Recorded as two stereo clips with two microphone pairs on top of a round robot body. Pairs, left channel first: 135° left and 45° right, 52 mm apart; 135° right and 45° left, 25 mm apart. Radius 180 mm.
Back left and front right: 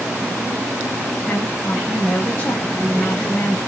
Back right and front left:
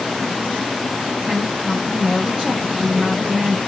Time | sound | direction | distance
1.2 | a woman speaking | 90° left | 1.2 m